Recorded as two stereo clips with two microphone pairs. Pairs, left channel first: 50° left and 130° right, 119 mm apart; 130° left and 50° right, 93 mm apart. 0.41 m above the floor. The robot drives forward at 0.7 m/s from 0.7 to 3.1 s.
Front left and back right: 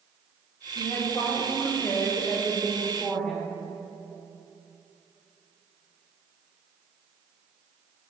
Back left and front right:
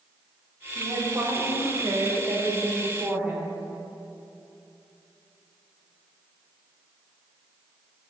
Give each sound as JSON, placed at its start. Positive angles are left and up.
{"t": 0.8, "sound": "a woman speaking", "azimuth_deg": -10, "distance_m": 2.5}